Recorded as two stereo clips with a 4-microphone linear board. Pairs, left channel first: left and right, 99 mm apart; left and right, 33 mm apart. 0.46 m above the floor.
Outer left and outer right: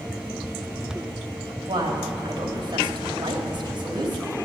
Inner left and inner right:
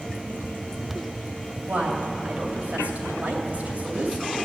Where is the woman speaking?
50° right (ahead or behind), 2.5 m.